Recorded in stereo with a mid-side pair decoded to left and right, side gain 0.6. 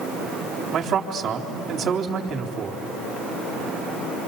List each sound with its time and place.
0.7 s a man speaking: 55° right, 3.5 m